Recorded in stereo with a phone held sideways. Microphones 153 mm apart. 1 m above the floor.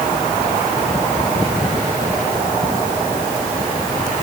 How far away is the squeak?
I don't hear a squeak.